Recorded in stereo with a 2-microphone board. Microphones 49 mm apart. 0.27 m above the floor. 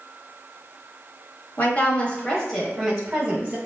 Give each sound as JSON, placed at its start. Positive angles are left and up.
{"t": 1.6, "sound": "a woman speaking", "side_deg": 35, "distance_m": 1.0}